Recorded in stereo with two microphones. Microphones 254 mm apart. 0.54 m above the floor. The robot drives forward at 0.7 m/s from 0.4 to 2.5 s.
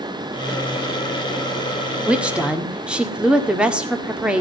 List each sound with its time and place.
2.1 s a woman speaking: 5° right (ahead or behind), 1.4 m